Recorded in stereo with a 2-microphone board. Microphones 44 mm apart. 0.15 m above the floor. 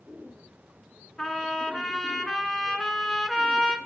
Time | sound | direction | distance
1.2 | a trumpet | 15° left (ahead or behind) | 1.3 m